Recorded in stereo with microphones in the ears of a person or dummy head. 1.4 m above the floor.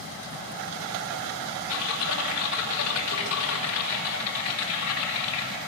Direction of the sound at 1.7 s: 80° left.